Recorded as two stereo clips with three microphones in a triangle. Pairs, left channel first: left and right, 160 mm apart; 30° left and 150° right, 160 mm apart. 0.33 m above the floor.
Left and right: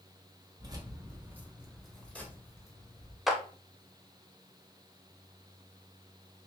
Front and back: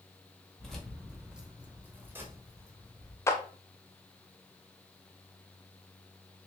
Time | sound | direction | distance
0.6 | keys jangling | 55° right | 1.0 m
3.3 | a clap | 5° right | 0.6 m